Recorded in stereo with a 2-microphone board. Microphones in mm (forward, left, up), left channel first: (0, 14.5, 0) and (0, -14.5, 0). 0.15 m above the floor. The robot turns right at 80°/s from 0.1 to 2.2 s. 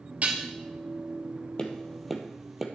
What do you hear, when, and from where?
0.2 s dishes clattering: 45° right (ahead or behind), 2.5 m; by 0.5 s 30° right (ahead or behind), 2.5 m
1.6 s tapping: 35° left (ahead or behind), 1.7 m; by 2.7 s 10° right (ahead or behind), 1.7 m